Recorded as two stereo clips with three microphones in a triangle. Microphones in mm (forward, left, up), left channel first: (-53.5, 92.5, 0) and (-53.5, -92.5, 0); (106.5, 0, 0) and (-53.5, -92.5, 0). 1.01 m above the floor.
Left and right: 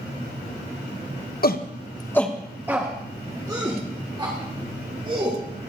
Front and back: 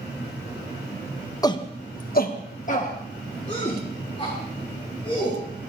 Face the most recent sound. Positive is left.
turn(degrees=-30)